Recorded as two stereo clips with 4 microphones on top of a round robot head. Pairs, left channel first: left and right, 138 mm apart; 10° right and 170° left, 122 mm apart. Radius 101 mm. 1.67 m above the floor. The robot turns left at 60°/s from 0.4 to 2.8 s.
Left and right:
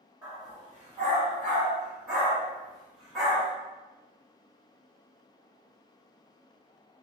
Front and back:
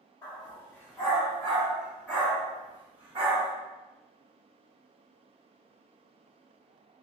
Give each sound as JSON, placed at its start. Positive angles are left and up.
{"t": 0.2, "sound": "a dog barking", "azimuth_deg": -40, "distance_m": 1.1}